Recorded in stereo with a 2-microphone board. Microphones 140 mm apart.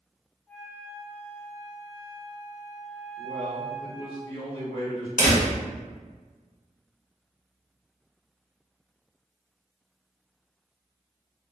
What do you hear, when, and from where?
0.5 s a flute: 15° left (ahead or behind), 0.6 m
3.2 s a man speaking: 35° left (ahead or behind), 1.3 m
5.2 s a door slam: 70° left (ahead or behind), 0.9 m